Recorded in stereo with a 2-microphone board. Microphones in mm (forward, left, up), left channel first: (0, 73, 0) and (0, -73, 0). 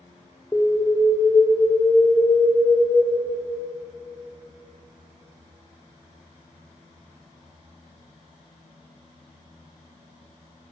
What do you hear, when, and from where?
0.5 s an alarm: 20° left (ahead or behind), 1.3 m